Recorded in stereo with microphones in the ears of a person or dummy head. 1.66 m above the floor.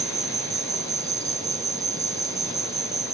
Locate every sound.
0.0 s an insect: 20° right (ahead or behind)